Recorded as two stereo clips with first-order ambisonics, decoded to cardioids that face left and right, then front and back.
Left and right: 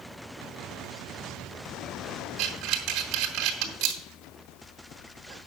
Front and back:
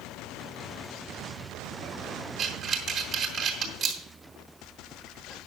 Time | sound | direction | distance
2.4 | breathing | 125° right | 3 m